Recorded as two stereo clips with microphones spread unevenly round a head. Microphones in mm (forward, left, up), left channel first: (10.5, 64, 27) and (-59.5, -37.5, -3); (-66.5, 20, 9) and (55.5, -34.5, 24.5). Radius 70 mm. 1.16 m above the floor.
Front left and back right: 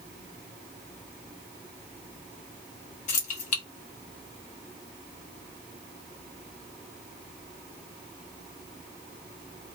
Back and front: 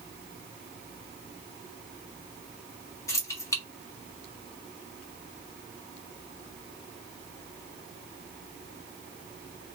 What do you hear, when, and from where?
3.1 s keys jangling: 85° left, 1.3 m